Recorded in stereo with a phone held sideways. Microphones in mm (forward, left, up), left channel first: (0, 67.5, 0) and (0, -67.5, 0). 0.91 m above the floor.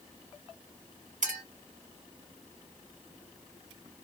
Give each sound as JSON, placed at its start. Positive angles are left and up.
{"t": 1.2, "sound": "a clink", "side_deg": -70, "distance_m": 1.7}